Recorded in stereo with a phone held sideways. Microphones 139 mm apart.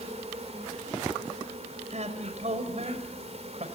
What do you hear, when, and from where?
0.0 s an insect: 50° right (ahead or behind), 4 m
1.9 s a man speaking: 55° right (ahead or behind), 5.5 m